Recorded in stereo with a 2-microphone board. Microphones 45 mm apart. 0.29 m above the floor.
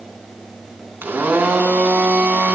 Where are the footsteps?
I don't hear footsteps.